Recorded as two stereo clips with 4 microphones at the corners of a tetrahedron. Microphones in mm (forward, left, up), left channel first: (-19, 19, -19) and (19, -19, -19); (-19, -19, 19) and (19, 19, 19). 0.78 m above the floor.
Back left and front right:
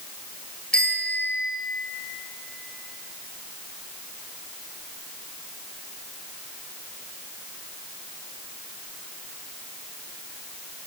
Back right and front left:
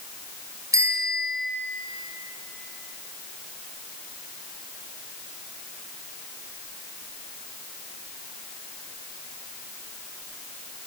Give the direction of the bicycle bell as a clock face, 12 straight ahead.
10 o'clock.